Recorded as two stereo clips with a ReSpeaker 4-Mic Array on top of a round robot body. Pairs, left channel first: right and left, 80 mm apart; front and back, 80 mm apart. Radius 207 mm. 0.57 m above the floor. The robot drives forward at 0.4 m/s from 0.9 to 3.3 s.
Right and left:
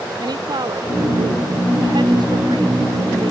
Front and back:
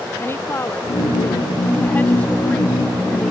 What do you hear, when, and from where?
0.2 s a woman speaking: 60° left; by 3.3 s 80° left